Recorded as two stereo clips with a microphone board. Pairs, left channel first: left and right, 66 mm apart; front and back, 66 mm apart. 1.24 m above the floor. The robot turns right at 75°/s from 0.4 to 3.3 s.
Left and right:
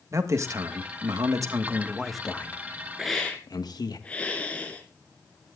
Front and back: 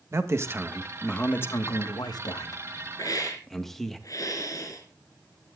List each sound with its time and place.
0.1 s a man speaking: 130° right, 1.4 m; by 4.0 s 85° left, 1.4 m
3.0 s a hiss: 5° right, 2.5 m; by 5.6 s 20° left, 2.5 m